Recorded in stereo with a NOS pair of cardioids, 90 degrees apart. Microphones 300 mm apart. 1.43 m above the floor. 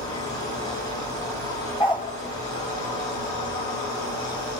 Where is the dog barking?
15° left, 3.5 m.